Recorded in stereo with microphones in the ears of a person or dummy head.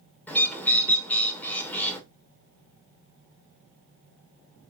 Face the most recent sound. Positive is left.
turn(degrees=10)  # may be behind; listen again after turning